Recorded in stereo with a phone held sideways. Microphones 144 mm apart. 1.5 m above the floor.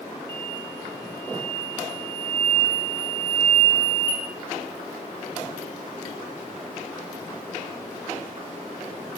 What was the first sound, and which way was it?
An explosion, 35° right (ahead or behind).